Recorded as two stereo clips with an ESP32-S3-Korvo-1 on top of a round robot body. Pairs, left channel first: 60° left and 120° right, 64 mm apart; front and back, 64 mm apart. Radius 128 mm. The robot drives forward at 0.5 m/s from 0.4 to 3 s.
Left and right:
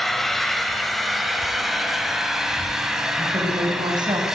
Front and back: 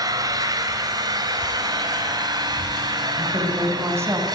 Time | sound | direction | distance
0.0 | an engine running | 150° left | 3 m
3.2 | a woman speaking | 130° right | 6 m